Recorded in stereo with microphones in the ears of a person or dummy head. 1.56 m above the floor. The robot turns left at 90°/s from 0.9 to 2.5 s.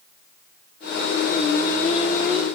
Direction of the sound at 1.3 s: 95° left.